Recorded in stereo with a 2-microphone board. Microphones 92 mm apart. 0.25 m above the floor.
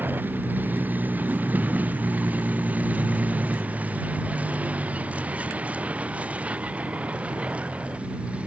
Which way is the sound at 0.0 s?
20° right (ahead or behind).